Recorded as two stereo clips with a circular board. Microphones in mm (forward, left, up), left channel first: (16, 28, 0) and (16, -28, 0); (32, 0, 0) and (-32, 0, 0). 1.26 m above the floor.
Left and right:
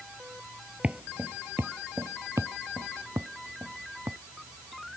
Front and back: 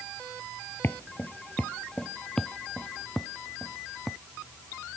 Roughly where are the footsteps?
Ahead right.